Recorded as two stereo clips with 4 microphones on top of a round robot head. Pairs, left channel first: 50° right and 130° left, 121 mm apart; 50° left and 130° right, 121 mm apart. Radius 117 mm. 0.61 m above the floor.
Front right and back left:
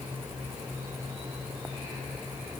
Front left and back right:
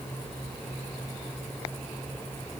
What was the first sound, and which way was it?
Only background noise.